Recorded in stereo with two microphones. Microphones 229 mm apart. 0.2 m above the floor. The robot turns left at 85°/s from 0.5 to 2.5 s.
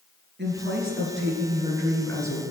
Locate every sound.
0.4 s a woman speaking: 55° right, 3 m; by 2.4 s 140° left, 3 m